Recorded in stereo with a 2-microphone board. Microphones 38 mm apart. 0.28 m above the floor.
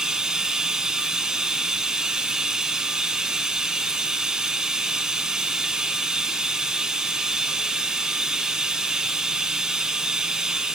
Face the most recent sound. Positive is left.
turn(degrees=-20)  # may be behind; listen again after turning